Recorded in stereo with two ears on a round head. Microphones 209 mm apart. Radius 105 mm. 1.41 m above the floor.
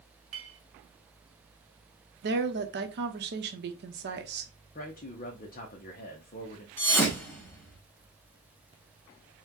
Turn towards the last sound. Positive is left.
turn(degrees=10)  # may be behind; listen again after turning